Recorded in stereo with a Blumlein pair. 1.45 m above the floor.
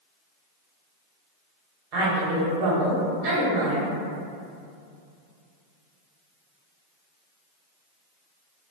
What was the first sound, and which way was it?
A woman speaking, 40° right.